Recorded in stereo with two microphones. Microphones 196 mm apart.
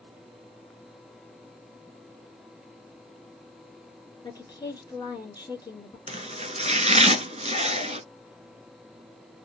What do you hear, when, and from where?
4.2 s a woman speaking: 20° left (ahead or behind), 1.7 m
6.1 s chopping: 35° right (ahead or behind), 0.6 m